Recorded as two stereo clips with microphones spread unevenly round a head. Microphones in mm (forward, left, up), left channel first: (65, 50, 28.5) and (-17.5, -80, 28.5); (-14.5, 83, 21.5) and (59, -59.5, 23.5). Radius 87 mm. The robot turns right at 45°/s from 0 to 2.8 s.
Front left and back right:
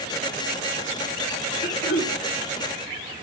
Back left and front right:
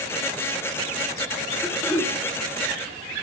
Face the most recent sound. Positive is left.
turn(degrees=75)